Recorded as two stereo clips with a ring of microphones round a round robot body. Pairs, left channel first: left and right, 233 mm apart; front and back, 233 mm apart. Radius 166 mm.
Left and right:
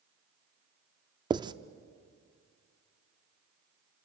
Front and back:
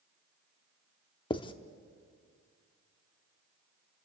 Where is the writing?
40° right, 0.6 m.